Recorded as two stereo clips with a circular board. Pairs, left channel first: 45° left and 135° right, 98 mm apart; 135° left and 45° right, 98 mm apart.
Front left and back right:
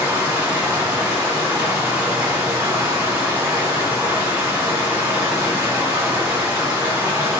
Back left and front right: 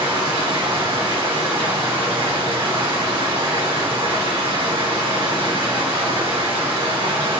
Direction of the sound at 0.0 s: 65° right.